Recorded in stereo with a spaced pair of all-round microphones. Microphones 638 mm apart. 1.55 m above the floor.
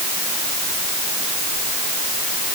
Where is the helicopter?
No helicopter in this recording.